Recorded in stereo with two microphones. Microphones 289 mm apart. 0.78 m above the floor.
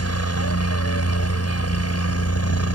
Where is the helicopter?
50° left (ahead or behind).